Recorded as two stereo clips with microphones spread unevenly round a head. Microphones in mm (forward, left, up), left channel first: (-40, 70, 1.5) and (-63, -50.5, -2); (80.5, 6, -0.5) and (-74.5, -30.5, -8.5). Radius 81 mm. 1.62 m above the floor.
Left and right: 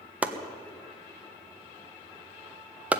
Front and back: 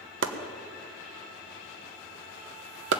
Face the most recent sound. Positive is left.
turn(degrees=180)